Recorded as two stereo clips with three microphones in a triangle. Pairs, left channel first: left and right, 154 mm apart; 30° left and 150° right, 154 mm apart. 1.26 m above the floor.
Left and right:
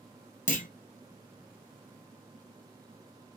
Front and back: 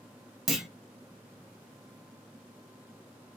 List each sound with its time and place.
0.5 s a clunk: 120° left, 0.7 m